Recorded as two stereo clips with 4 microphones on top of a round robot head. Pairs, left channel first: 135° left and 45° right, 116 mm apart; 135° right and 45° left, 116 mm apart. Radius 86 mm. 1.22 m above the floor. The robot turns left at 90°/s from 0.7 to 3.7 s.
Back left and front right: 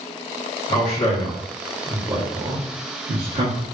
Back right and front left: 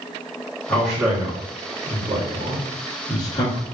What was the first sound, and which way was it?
A man speaking, 155° left.